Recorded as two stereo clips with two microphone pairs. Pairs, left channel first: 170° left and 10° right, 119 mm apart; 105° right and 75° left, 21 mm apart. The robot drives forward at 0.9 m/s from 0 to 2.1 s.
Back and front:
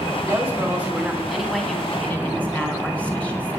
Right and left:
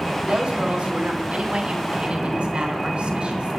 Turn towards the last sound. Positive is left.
turn(degrees=95)